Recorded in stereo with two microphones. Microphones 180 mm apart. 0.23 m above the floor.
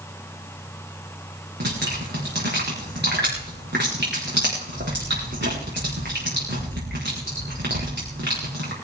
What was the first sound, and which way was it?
Dripping, 80° right.